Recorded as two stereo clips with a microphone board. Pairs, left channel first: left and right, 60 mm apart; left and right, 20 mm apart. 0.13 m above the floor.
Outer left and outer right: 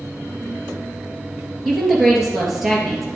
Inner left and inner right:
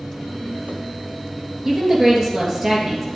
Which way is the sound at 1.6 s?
5° right (ahead or behind).